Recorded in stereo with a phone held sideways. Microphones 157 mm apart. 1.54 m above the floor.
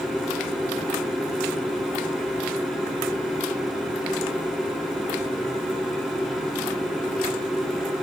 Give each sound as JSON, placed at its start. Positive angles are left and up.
{"t": 0.0, "sound": "a machine running", "side_deg": -5, "distance_m": 3.0}